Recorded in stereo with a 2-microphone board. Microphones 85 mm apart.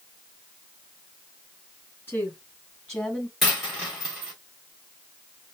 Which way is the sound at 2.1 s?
25° left (ahead or behind).